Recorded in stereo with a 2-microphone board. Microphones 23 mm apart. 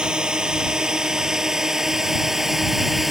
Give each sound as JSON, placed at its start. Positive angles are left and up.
{"t": 0.0, "sound": "a drone", "side_deg": -35}